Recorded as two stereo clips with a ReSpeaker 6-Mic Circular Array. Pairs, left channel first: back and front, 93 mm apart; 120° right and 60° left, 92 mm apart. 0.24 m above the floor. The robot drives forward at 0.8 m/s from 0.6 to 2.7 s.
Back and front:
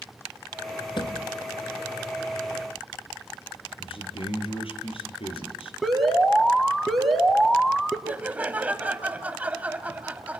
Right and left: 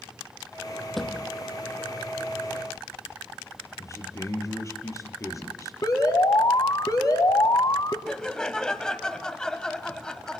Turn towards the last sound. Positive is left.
turn(degrees=-50)